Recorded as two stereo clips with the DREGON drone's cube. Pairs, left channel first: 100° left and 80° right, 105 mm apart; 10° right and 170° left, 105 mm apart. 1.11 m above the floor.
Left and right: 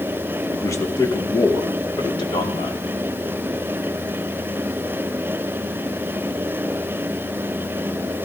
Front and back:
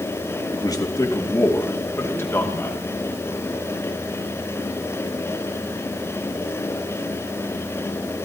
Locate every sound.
0.5 s a man speaking: 35° left, 1.8 m; by 2.8 s 60° left, 3.5 m